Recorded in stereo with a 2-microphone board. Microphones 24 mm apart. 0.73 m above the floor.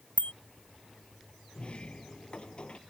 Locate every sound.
0.2 s a bicycle bell: 75° left (ahead or behind)
1.6 s a sliding door: 45° left (ahead or behind)